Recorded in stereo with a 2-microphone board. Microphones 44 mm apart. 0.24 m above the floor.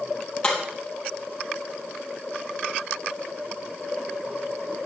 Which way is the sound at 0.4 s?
20° left (ahead or behind).